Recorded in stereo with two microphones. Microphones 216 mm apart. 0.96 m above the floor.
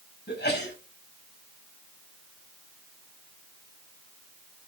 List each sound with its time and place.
0.3 s a sneeze: 55° left (ahead or behind), 5 m